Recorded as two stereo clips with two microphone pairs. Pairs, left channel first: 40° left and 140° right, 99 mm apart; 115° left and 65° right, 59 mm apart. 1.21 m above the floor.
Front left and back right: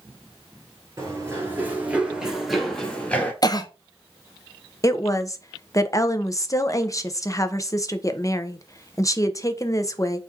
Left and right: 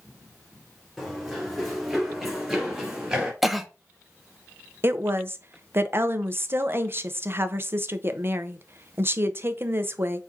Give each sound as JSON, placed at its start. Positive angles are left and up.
{"t": 1.0, "sound": "running footsteps", "azimuth_deg": -160, "distance_m": 1.4}
{"t": 3.4, "sound": "a cough", "azimuth_deg": 20, "distance_m": 0.6}
{"t": 4.8, "sound": "a woman speaking", "azimuth_deg": -20, "distance_m": 0.5}